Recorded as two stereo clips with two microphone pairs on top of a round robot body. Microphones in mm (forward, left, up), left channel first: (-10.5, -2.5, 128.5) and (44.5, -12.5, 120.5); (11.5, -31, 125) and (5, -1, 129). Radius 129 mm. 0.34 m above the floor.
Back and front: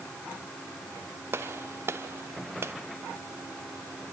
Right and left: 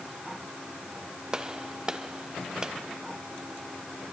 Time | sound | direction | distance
1.3 | a gunshot | 30° left | 1.3 m